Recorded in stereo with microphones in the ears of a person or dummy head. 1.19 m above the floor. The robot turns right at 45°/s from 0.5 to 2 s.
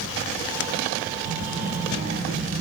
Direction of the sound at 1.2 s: 75° right.